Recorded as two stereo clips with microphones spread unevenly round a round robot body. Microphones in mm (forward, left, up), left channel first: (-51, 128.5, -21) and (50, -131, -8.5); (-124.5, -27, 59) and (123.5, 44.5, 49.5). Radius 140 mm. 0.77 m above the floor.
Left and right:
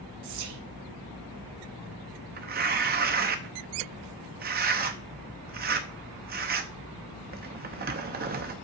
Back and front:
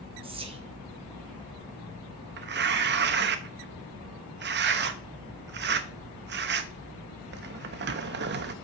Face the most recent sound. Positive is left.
turn(degrees=-15)